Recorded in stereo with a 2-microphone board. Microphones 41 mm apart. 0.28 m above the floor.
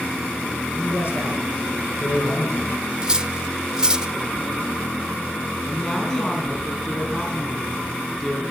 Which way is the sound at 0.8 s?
65° left (ahead or behind).